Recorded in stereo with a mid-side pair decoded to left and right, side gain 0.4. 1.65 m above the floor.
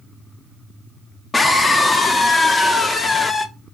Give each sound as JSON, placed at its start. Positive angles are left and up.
{"t": 1.3, "sound": "a scream", "azimuth_deg": 35, "distance_m": 1.5}